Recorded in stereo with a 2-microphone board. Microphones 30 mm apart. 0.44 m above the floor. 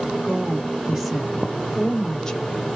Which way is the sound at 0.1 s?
20° right (ahead or behind).